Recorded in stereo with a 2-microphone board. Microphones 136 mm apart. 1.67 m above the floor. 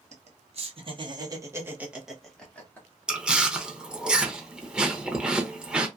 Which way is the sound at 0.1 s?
55° right (ahead or behind).